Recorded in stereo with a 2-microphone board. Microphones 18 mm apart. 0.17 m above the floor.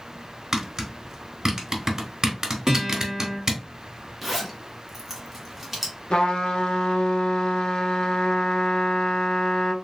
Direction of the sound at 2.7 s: 25° right (ahead or behind).